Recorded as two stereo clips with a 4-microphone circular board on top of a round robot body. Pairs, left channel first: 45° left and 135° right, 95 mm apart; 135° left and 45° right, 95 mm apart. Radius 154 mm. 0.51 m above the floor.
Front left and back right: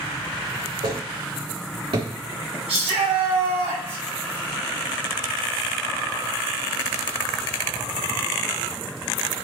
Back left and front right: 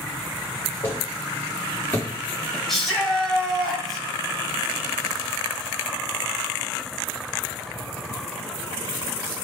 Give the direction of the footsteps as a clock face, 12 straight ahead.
5 o'clock.